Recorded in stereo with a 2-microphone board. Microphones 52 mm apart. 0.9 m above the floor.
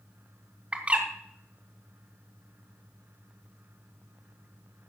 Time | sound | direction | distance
0.7 | a bird | 25° right (ahead or behind) | 1.6 m